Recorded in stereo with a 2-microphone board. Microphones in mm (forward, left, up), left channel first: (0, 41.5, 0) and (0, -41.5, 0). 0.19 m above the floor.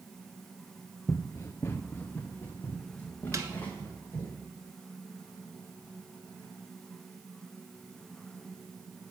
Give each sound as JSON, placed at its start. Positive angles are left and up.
{"t": 1.1, "sound": "running footsteps", "side_deg": 40, "distance_m": 0.7}
{"t": 3.3, "sound": "a snare drum", "side_deg": -40, "distance_m": 1.2}